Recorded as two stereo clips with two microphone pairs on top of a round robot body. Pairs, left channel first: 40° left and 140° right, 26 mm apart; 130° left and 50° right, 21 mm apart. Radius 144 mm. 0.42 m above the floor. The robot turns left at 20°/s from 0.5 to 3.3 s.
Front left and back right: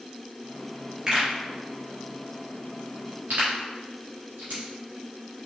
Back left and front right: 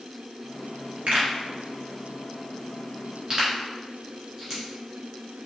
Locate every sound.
1.1 s a pop: 70° right, 1.8 m; by 4.6 s 115° right, 1.8 m